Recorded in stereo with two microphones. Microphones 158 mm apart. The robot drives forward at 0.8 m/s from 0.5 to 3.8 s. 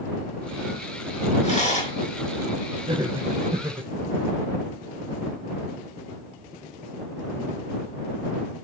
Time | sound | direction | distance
1.4 | a rattle | 45° left (ahead or behind) | 4 m
2.9 | laughter | 30° right (ahead or behind) | 1.7 m